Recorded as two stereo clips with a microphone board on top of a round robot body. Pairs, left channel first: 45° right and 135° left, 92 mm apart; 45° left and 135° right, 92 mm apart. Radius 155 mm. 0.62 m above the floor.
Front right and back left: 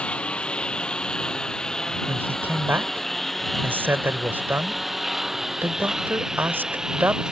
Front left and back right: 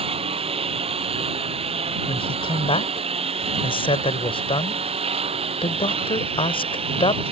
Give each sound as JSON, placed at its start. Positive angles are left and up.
{"t": 0.0, "sound": "a lawn mower", "azimuth_deg": -125}
{"t": 2.1, "sound": "a man speaking", "azimuth_deg": 65}